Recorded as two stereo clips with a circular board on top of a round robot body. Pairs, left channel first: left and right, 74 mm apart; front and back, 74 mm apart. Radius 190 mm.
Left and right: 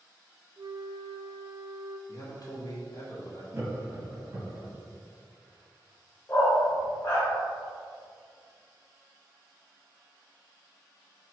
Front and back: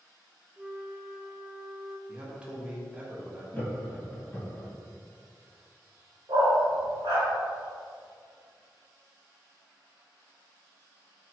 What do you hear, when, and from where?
0.6 s a flute: 105° right, 0.5 m
2.1 s a man speaking: 105° left, 1.1 m
3.5 s laughter: 55° right, 1.1 m
6.3 s a dog barking: 155° left, 0.8 m